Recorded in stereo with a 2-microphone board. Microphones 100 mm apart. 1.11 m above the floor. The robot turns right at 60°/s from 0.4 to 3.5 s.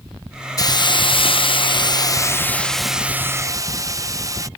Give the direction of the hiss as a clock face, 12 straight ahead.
11 o'clock.